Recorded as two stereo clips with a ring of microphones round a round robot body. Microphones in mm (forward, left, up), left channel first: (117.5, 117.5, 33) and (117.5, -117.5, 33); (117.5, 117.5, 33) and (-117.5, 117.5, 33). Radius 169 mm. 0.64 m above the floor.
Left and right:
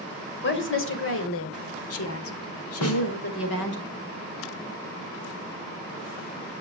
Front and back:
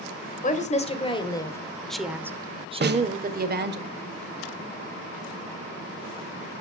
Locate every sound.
0.4 s a woman speaking: 55° left, 2.5 m; by 3.8 s 140° left, 2 m
2.8 s a snare drum: 135° left, 1.5 m